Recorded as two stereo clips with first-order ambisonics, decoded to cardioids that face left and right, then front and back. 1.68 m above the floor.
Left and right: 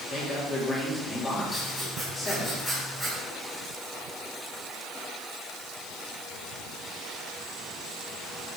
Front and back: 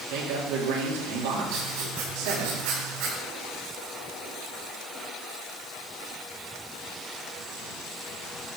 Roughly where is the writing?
Behind.